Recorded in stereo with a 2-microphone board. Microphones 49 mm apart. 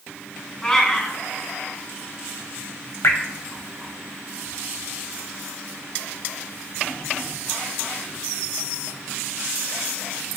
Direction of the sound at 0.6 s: 15° left (ahead or behind).